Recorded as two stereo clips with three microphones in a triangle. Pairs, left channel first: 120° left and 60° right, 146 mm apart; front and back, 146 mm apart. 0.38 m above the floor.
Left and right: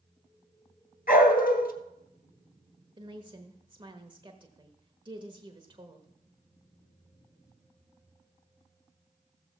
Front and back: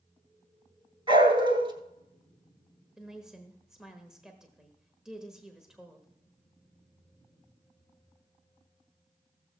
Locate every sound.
1.1 s a dog barking: 125° left, 1.9 m
3.0 s a woman speaking: 95° right, 1.2 m